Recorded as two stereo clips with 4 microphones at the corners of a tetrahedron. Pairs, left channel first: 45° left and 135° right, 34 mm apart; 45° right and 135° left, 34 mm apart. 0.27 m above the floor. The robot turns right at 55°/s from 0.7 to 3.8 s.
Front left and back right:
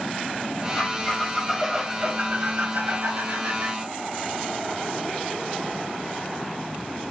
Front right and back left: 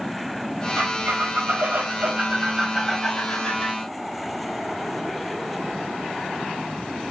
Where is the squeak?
100° left, 3 m; by 3.8 s 95° right, 3 m.